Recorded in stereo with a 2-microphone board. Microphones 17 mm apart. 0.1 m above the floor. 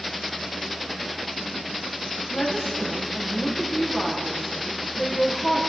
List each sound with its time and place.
2.3 s a woman speaking: 70° left (ahead or behind), 5 m